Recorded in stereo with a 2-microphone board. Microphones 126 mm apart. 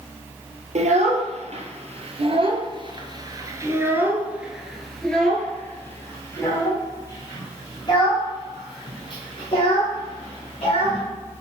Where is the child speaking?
65° right (ahead or behind), 2 m; by 11.0 s 50° left (ahead or behind), 4 m.